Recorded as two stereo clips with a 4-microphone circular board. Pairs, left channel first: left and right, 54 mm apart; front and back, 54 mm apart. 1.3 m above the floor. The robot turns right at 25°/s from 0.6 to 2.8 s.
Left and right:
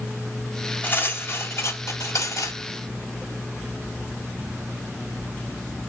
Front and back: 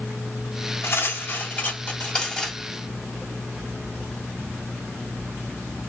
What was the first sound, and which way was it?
Cutlery clinking, 35° left.